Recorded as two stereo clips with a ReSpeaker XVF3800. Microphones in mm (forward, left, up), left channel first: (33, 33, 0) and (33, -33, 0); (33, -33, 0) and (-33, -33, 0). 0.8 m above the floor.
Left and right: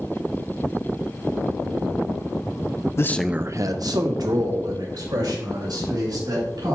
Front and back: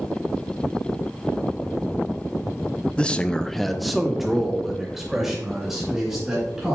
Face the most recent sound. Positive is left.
turn(degrees=-95)